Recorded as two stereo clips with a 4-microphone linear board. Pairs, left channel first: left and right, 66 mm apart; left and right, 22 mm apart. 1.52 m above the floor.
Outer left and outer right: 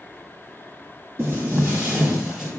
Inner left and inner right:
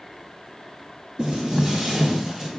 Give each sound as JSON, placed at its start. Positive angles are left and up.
{"t": 1.2, "sound": "footsteps", "side_deg": -30, "distance_m": 1.7}